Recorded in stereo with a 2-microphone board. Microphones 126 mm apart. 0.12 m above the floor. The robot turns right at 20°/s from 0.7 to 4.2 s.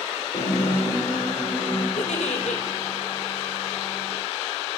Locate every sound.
0.3 s a guitar: 65° left (ahead or behind), 8 m; by 1.9 s 40° left (ahead or behind), 8 m
2.0 s a giggle: 75° left (ahead or behind), 1.9 m; by 2.6 s 65° left (ahead or behind), 1.9 m